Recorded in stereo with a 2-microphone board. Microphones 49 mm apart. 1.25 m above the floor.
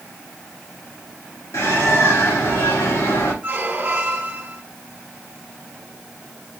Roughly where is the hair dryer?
I don't hear a hair dryer.